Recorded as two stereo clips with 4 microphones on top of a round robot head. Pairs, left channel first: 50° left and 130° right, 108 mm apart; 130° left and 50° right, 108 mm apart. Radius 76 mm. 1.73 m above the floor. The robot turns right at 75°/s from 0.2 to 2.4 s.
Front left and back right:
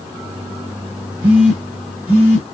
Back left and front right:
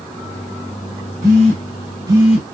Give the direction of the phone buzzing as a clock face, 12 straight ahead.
2 o'clock.